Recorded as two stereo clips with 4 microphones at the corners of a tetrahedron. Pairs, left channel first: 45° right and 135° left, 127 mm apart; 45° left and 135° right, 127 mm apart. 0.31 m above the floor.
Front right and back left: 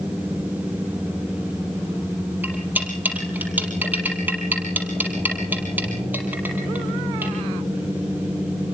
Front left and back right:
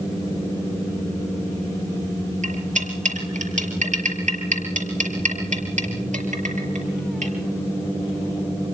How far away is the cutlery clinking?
About 5.5 m.